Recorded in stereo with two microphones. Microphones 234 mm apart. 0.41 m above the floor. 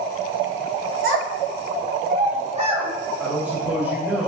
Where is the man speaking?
5° right (ahead or behind), 1.5 m.